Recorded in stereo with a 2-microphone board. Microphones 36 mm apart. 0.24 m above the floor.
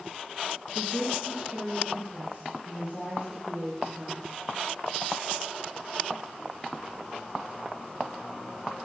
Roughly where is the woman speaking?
Centre.